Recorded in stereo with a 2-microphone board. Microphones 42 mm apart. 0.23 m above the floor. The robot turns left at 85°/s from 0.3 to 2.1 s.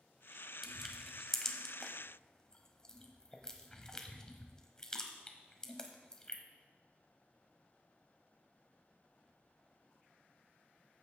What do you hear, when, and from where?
0.6 s crushing: 5° right (ahead or behind), 1.1 m; by 6.4 s 15° left (ahead or behind), 1.1 m